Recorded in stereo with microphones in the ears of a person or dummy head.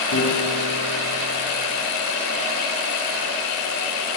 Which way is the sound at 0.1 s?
80° left.